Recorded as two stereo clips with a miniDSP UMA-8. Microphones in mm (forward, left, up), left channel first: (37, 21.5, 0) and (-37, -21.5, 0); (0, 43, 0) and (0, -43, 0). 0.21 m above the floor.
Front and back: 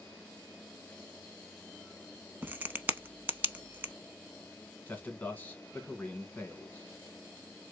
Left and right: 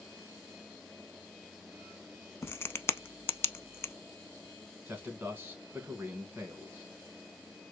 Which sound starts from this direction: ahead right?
A man speaking, at 4.9 s.